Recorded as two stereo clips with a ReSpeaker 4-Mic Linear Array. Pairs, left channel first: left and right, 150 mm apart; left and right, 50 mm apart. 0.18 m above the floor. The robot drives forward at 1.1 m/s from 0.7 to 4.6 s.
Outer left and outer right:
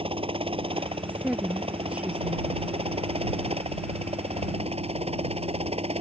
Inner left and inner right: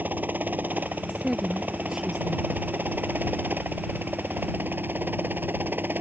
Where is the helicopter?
35° right (ahead or behind); by 6.0 s 40° right (ahead or behind).